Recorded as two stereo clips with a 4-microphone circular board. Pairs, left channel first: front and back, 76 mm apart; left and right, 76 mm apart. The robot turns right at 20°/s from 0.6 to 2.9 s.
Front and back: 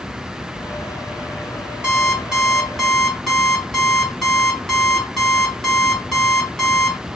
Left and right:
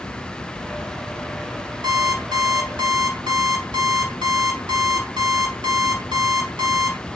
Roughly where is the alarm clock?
Right.